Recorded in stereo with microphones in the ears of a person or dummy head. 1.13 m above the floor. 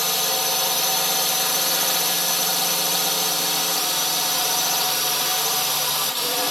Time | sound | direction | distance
0.0 | a drone | 5° right (ahead or behind) | ?